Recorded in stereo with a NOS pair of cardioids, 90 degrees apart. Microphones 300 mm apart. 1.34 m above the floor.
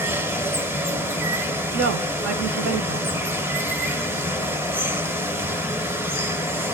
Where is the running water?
5° right, 0.7 m.